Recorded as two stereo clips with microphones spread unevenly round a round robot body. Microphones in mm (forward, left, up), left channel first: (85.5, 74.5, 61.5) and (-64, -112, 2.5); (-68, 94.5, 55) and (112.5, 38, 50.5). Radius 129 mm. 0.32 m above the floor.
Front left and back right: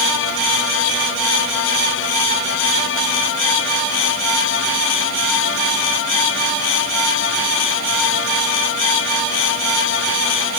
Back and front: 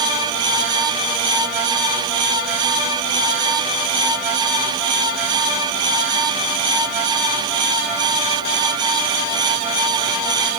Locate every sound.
Only background noise.